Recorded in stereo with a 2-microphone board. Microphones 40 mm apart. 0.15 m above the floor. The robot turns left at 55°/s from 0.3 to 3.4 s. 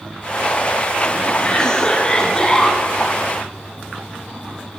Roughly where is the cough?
Centre.